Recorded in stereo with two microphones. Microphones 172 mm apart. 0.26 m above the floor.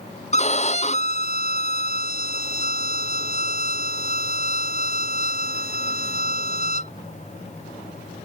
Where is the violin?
40° left (ahead or behind).